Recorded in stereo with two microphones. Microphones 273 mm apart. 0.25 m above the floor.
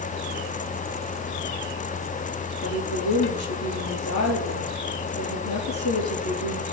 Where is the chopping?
I don't hear chopping.